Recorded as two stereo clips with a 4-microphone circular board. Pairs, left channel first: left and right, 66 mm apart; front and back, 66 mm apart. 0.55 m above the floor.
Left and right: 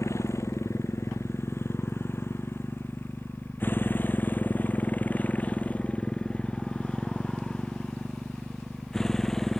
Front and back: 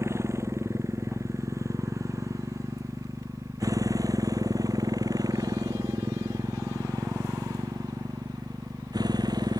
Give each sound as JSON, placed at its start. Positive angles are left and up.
{"t": 0.0, "sound": "a motorcycle", "azimuth_deg": 135}